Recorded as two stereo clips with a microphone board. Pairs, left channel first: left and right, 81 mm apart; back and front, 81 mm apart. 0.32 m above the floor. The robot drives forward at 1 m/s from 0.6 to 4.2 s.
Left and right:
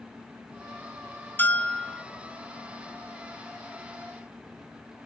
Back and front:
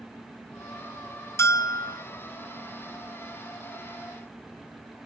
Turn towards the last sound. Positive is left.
turn(degrees=175)